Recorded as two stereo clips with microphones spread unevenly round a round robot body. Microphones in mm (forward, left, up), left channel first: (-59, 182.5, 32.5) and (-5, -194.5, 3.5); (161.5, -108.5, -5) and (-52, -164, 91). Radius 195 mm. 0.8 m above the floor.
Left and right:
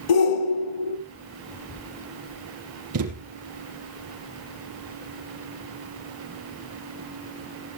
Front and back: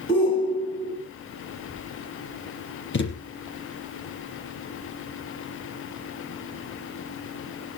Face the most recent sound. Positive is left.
turn(degrees=-25)